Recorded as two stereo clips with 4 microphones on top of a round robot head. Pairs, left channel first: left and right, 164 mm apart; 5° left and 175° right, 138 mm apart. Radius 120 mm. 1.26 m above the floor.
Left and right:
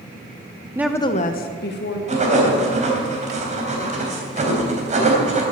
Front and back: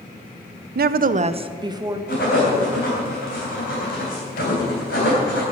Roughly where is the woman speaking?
Behind.